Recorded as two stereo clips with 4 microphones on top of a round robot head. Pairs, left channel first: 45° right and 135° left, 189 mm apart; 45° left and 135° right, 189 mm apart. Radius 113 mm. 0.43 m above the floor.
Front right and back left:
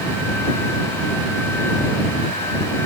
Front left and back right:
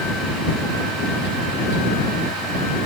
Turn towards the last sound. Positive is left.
No sound to turn to.